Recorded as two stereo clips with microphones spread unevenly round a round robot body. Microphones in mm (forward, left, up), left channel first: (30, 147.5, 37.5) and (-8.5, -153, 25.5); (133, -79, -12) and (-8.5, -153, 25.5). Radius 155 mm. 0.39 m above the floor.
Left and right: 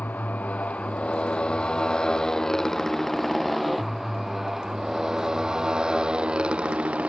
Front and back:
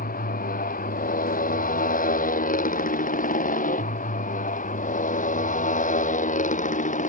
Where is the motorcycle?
Straight ahead; by 7.1 s 10° right.